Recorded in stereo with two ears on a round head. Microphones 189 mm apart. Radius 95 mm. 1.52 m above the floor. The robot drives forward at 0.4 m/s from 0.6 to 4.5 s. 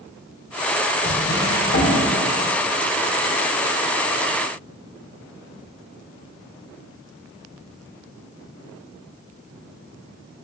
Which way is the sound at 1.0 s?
55° left (ahead or behind).